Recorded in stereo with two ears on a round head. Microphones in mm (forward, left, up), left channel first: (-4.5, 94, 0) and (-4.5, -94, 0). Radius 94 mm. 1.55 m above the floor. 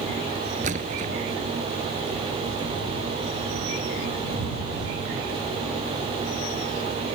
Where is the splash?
35° right (ahead or behind).